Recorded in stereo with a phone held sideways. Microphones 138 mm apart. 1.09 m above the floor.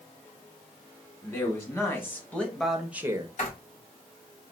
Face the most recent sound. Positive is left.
turn(degrees=55)  # may be behind; listen again after turning